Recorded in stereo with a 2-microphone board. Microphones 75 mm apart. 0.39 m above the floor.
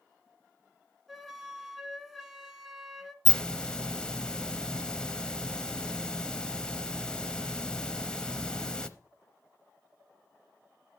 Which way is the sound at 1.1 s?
5° right (ahead or behind).